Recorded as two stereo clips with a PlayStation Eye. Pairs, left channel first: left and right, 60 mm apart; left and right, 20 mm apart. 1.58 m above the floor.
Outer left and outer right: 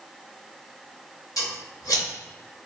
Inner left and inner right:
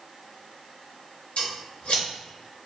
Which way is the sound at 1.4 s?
80° left.